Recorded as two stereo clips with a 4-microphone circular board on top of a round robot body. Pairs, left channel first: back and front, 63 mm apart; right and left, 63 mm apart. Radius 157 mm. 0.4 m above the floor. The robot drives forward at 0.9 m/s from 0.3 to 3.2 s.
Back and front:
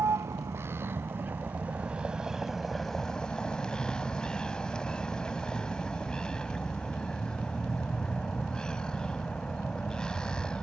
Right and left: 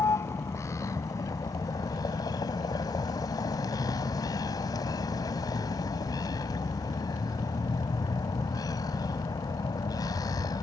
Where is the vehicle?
45° right; by 10.6 s 105° right.